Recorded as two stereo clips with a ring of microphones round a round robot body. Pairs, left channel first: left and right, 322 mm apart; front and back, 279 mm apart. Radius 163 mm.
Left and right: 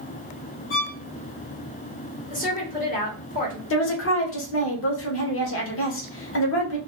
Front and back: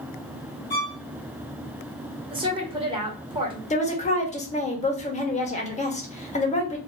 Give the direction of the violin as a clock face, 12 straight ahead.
10 o'clock.